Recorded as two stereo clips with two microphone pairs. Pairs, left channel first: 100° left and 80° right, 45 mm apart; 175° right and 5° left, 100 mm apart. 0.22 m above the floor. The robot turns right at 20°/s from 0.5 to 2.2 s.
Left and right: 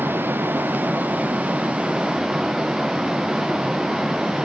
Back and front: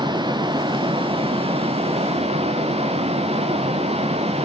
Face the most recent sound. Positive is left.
turn(degrees=-5)